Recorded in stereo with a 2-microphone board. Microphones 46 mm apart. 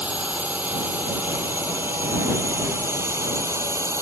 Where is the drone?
35° right (ahead or behind); by 4.0 s 70° right (ahead or behind).